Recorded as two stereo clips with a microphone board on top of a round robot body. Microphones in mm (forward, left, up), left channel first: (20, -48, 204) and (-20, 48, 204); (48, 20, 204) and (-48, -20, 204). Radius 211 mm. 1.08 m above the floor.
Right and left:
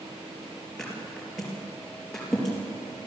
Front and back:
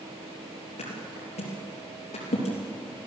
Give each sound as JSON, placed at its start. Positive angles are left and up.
{"t": 0.8, "sound": "a thud", "azimuth_deg": 20, "distance_m": 4.0}